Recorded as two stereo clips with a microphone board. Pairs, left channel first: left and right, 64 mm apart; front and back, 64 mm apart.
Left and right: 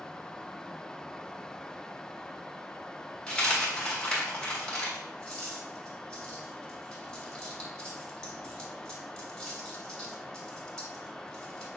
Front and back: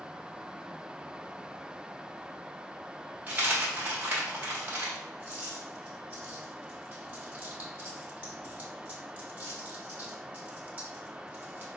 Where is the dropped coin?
155° left, 1.2 m.